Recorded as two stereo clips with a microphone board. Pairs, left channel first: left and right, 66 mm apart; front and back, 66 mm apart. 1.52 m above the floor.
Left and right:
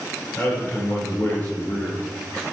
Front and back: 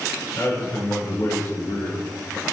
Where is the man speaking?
25° left, 5 m.